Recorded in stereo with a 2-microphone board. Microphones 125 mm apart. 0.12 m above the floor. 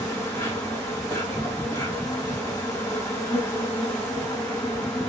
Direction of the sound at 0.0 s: 25° left (ahead or behind).